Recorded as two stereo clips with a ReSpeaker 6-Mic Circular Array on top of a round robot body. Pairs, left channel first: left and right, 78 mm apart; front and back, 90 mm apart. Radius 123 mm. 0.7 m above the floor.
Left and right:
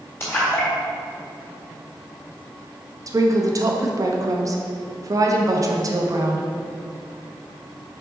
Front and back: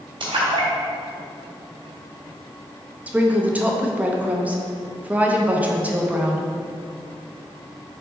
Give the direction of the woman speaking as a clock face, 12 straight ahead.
4 o'clock.